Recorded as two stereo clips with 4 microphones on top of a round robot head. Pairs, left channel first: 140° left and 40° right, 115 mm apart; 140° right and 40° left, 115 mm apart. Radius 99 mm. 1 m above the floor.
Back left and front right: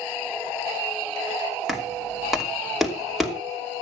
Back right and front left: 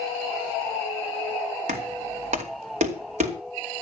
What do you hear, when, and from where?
1.7 s knocking: 45° left, 3 m